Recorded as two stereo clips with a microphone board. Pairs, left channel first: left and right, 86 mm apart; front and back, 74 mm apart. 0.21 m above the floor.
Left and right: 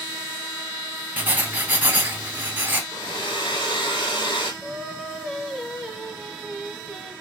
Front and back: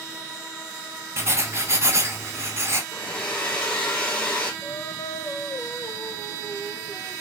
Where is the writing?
150° right, 0.7 m.